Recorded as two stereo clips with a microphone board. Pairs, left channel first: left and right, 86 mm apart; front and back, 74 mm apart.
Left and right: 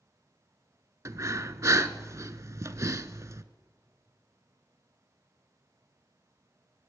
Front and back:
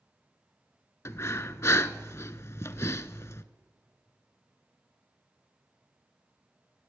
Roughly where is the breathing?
Ahead right.